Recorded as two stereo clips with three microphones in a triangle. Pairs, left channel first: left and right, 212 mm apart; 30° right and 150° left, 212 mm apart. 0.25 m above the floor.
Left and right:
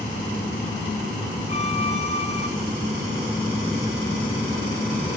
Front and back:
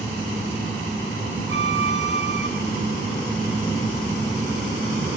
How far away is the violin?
About 2.5 m.